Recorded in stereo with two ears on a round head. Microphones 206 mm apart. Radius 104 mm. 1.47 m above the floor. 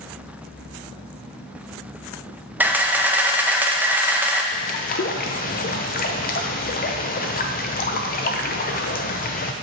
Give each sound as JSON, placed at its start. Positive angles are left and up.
{"t": 2.6, "sound": "a camera shutter", "side_deg": -10, "distance_m": 0.6}
{"t": 4.5, "sound": "a bird", "side_deg": 40, "distance_m": 0.6}